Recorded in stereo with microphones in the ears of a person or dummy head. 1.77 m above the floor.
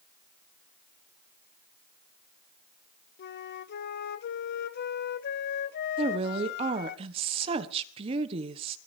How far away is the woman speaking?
About 1.3 m.